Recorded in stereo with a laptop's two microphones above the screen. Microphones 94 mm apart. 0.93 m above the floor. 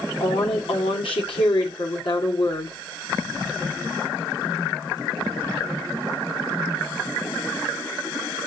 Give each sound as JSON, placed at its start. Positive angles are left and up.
{"t": 0.2, "sound": "a woman speaking", "side_deg": 70, "distance_m": 2.5}